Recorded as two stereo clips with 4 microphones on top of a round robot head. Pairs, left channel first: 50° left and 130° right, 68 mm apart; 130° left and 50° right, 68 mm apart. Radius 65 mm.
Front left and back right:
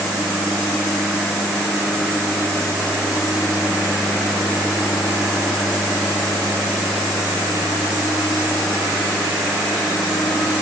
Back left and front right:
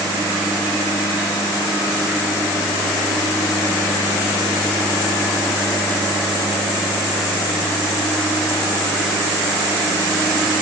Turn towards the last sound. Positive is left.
No sound to turn to.